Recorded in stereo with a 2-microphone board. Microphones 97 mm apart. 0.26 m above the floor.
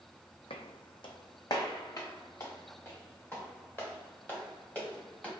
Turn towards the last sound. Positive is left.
turn(degrees=15)  # may be behind; listen again after turning